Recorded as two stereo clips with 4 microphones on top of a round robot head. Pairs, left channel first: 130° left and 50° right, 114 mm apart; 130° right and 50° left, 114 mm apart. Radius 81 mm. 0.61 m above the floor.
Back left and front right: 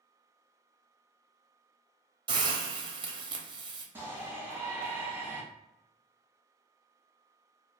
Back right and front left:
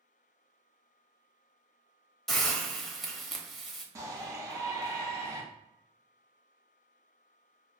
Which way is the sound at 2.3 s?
45° right.